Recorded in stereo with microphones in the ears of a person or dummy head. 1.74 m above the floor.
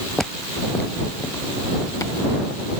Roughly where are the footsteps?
Centre.